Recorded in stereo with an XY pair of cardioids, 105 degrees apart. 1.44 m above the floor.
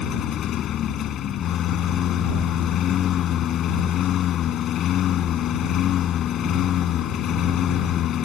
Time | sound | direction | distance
0.0 | a lawn mower | 70° left | ?